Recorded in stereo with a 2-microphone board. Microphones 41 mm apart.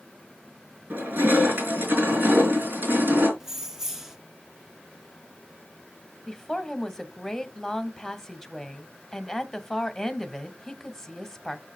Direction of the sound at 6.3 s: 10° left (ahead or behind).